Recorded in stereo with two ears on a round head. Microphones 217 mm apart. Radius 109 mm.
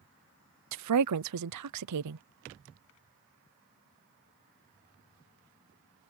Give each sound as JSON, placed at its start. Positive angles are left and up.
{"t": 0.7, "sound": "a woman speaking", "side_deg": -85}